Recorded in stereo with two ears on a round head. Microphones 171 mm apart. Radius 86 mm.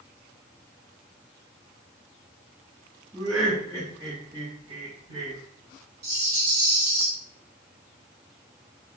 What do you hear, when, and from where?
3.1 s laughter: centre (ahead or behind), 1.8 m; by 5.4 s 35° right (ahead or behind), 2.5 m
6.0 s a rattle: 50° right (ahead or behind), 1.7 m